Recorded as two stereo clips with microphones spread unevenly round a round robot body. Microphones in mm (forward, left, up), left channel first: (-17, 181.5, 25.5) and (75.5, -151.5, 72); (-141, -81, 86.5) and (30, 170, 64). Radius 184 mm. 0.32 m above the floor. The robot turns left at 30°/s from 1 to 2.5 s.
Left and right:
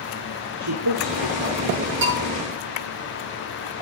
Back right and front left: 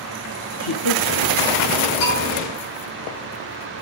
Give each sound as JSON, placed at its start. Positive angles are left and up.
{"t": 0.6, "sound": "a man speaking", "azimuth_deg": -120, "distance_m": 4.5}
{"t": 2.0, "sound": "a bell", "azimuth_deg": -135, "distance_m": 8.5}